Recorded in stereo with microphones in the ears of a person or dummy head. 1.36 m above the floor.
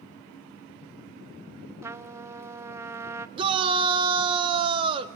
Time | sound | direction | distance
1.8 | a trumpet | 20° right (ahead or behind) | 0.5 m
3.4 | a shout | 35° right (ahead or behind) | 1.1 m